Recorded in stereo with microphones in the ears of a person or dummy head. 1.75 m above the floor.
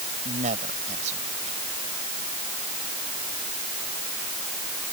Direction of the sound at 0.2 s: 45° right (ahead or behind).